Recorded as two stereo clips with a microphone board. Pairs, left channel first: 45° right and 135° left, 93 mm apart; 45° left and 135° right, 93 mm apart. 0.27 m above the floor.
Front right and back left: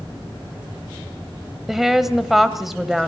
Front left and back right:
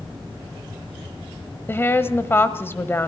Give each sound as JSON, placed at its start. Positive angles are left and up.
{"t": 1.7, "sound": "a woman speaking", "azimuth_deg": 50, "distance_m": 1.3}